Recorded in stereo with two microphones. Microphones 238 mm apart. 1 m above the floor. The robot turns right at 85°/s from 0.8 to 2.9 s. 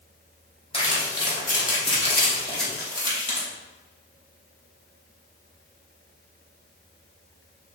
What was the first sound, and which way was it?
Crumpling, 25° left (ahead or behind).